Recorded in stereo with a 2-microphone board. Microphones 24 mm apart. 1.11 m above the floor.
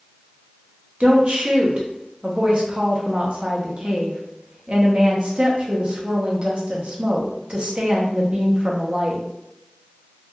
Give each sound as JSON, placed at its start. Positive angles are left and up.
{"t": 1.0, "sound": "a woman speaking", "side_deg": -45, "distance_m": 0.6}